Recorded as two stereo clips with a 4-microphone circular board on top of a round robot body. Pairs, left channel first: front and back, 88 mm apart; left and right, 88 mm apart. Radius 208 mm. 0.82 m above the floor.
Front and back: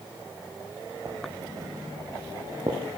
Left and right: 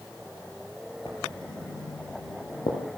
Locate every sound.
1.1 s writing: 125° left, 5.5 m